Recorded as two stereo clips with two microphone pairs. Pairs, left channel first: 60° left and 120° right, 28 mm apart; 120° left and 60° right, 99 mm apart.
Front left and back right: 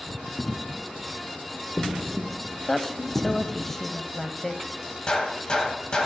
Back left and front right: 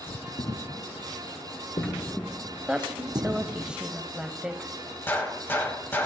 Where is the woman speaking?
5° left, 0.9 m.